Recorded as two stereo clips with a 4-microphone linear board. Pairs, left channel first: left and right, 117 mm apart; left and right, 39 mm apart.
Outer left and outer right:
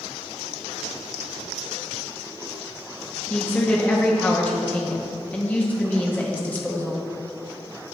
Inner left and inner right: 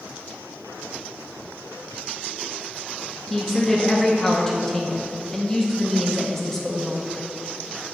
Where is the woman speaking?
15° left (ahead or behind), 0.6 m.